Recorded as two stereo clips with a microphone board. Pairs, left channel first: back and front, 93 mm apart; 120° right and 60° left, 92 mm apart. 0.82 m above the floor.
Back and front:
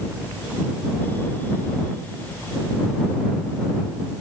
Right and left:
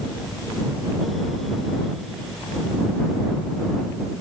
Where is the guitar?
I don't hear a guitar.